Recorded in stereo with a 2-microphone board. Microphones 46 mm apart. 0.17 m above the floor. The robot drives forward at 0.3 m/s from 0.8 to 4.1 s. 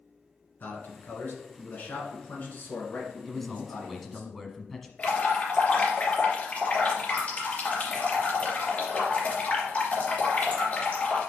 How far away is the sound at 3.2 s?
About 1.2 m.